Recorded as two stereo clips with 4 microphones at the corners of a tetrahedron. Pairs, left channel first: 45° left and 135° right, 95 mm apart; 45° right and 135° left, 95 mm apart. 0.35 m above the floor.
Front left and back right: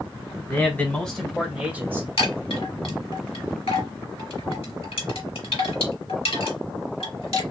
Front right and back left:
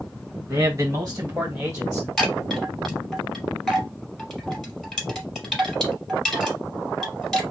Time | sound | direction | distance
0.5 | a man speaking | 90° left | 1.8 m
2.2 | a chime | 45° left | 3 m